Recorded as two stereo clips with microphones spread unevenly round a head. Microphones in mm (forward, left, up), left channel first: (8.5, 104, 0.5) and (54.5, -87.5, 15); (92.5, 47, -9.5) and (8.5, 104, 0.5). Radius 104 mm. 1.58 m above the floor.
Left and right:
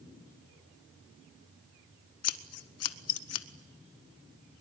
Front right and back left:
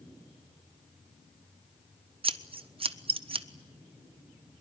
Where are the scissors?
115° left, 1.1 m.